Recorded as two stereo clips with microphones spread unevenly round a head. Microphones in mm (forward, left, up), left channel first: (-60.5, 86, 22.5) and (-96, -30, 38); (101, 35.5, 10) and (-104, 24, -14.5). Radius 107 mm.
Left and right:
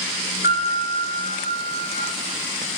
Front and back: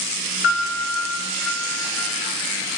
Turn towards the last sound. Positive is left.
turn(degrees=20)